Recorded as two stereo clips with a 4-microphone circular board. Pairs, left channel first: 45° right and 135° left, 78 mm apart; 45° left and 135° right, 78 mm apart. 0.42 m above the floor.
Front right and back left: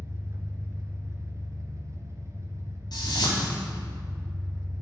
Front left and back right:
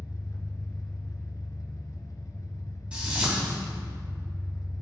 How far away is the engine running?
About 1.5 m.